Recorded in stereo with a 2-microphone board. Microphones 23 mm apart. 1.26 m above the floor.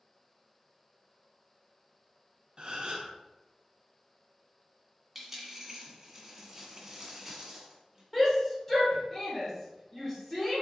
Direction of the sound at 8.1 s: 25° left (ahead or behind).